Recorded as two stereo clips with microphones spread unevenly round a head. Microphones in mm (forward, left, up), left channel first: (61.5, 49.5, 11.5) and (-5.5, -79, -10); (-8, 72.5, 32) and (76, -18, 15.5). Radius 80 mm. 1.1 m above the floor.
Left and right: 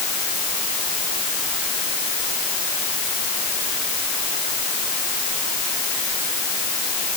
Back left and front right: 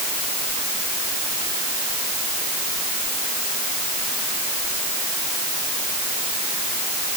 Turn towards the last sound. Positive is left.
No sound to turn to.